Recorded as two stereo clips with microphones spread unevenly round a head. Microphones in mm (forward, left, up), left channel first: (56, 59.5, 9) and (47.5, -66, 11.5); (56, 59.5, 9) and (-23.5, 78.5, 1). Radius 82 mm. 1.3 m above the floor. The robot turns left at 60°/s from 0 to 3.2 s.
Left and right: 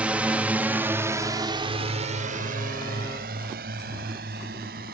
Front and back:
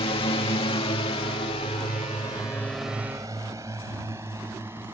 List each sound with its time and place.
0.0 s a drone: 15° right; by 5.0 s 115° right